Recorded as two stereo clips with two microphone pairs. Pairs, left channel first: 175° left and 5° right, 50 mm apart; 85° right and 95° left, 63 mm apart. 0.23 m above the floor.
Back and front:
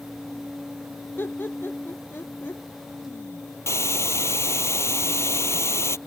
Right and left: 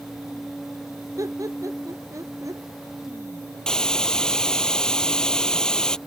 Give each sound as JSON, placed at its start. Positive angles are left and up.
{"t": 1.2, "sound": "laughter", "azimuth_deg": 130}
{"t": 3.7, "sound": "a hiss", "azimuth_deg": -160}